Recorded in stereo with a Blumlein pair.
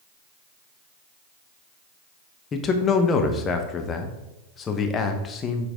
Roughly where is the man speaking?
Ahead left.